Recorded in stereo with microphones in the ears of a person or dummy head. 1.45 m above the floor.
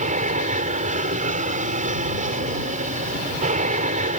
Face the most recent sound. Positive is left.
turn(degrees=-35)  # may be behind; listen again after turning